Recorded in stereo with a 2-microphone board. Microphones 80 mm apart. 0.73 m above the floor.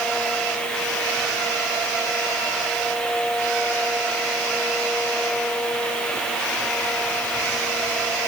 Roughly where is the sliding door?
I don't hear a sliding door.